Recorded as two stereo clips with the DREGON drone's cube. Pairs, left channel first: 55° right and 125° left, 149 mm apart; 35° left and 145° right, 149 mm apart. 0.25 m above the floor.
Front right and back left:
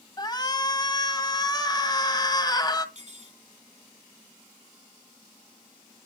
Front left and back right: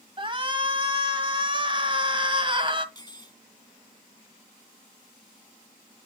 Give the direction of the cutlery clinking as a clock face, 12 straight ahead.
9 o'clock.